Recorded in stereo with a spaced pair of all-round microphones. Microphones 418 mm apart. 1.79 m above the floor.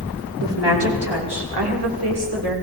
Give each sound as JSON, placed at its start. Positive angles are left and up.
{"t": 0.4, "sound": "a woman speaking", "side_deg": -75, "distance_m": 5.0}